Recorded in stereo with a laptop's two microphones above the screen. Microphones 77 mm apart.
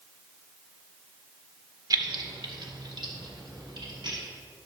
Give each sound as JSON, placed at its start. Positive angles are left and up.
{"t": 1.9, "sound": "keys jangling", "side_deg": -55, "distance_m": 1.0}